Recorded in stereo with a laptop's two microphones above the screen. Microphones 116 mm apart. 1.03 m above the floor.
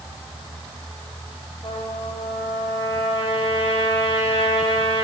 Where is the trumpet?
65° left (ahead or behind), 8.5 m.